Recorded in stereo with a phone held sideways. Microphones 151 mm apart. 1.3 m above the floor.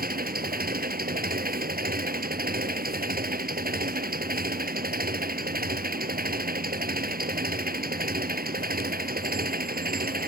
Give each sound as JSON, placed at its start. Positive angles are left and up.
{"t": 0.0, "sound": "an engine running", "side_deg": -80}